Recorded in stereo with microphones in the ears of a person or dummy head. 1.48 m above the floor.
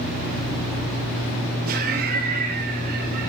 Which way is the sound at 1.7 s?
45° right (ahead or behind).